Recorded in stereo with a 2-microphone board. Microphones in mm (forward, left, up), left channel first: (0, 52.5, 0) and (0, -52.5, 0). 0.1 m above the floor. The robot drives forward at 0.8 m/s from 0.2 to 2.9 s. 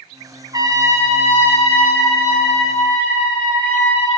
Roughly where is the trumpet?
Right.